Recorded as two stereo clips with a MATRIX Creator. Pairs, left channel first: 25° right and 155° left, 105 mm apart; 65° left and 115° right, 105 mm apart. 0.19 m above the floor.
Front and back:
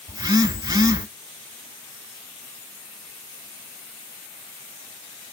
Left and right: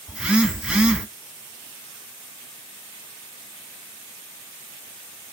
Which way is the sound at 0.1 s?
170° left.